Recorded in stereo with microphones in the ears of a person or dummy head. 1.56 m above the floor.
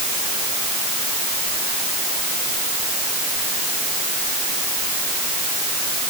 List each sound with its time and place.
Only background noise.